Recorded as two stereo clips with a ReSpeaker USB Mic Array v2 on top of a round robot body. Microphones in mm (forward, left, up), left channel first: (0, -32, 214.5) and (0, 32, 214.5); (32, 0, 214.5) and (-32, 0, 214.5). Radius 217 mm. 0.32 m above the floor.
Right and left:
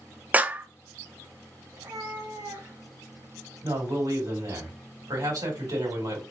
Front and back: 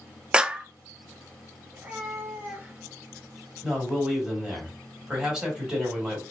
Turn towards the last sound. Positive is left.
turn(degrees=100)